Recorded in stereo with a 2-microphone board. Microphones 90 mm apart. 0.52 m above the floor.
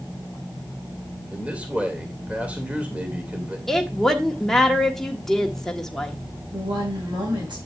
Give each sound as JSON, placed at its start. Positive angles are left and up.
{"t": 1.3, "sound": "a man speaking", "side_deg": -15, "distance_m": 2.0}
{"t": 3.7, "sound": "a woman speaking", "side_deg": 5, "distance_m": 1.3}
{"t": 6.5, "sound": "a woman speaking", "side_deg": -70, "distance_m": 4.0}